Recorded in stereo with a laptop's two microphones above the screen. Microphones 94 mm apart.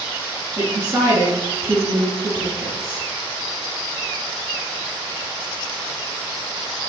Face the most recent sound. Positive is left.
turn(degrees=-35)  # may be behind; listen again after turning